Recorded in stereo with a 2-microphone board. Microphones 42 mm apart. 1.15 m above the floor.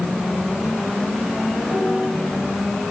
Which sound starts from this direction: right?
A piano, at 1.7 s.